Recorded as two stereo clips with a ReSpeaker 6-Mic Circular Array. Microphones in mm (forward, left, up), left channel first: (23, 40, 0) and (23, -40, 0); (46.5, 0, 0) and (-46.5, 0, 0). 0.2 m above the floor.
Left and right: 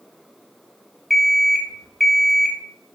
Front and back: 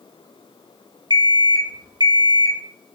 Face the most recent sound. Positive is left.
turn(degrees=180)